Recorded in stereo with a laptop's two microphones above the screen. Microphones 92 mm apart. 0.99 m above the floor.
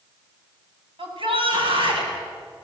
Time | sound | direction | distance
1.0 | a shout | 80° right | 6.5 m